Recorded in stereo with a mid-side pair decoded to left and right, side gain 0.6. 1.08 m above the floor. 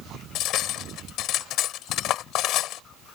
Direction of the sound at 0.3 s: 65° left.